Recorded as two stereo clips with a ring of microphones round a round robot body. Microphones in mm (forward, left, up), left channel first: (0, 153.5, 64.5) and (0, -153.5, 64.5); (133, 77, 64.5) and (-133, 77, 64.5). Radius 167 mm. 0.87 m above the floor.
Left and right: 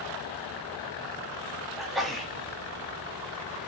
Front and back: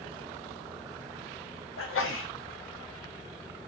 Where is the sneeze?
Straight ahead, 1.1 m.